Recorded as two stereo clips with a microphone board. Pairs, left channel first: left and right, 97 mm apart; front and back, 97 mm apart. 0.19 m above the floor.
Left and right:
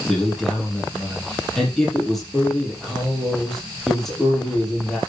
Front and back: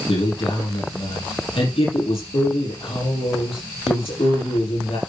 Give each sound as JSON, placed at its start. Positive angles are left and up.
{"t": 0.1, "sound": "a man speaking", "azimuth_deg": 5, "distance_m": 5.5}